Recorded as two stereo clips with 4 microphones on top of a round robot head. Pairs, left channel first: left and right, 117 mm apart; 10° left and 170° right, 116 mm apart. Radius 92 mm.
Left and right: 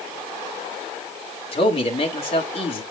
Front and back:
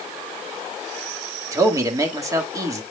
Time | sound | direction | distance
1.5 | a man speaking | 125° left | 2 m